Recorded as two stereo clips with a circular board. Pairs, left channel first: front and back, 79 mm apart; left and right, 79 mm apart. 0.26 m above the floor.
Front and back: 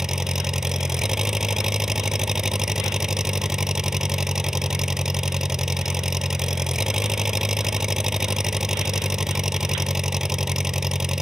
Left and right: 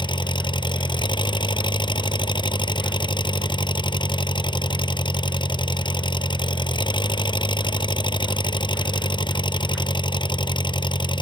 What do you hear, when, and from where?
0.0 s an engine running: 95° left